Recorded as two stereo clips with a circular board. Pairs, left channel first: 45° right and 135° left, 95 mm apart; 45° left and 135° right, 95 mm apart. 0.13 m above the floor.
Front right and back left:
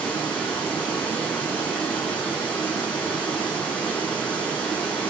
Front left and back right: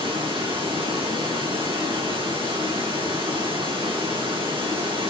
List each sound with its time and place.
0.0 s running water: 120° right, 6.5 m